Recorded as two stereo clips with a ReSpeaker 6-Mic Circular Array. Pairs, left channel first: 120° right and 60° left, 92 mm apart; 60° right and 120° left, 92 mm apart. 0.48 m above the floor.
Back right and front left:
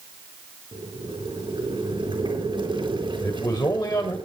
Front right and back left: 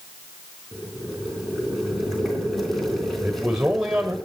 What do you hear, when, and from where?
0.7 s boiling: 30° left, 4 m
3.2 s a man speaking: 160° right, 1.6 m